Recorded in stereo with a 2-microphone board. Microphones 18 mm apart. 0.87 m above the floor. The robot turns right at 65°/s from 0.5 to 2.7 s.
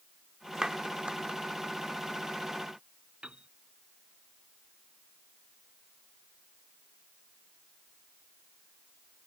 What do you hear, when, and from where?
0.6 s a clap: 40° right (ahead or behind); by 1.4 s 80° right
3.2 s a piano: 75° right (ahead or behind)